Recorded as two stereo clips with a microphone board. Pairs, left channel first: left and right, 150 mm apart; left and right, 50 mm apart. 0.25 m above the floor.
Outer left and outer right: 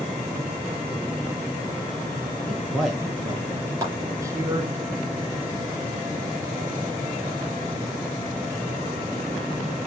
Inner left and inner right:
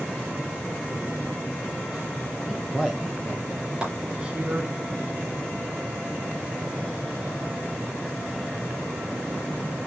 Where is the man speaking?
Centre (ahead or behind), 3.5 m; by 4.8 s 30° right (ahead or behind), 2 m.